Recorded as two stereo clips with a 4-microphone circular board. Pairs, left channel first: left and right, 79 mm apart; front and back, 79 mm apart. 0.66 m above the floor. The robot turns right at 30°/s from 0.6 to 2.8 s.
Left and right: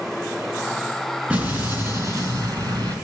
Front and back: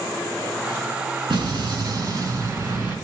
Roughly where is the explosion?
Behind.